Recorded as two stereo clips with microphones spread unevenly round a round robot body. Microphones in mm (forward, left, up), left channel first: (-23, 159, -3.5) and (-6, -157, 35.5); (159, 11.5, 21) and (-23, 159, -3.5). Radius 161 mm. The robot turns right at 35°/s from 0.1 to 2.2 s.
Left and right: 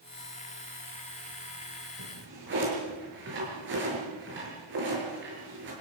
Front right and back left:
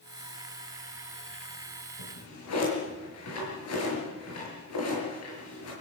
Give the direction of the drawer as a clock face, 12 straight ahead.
1 o'clock.